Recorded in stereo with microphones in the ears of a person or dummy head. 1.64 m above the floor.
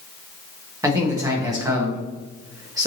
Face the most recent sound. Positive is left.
turn(degrees=-15)  # may be behind; listen again after turning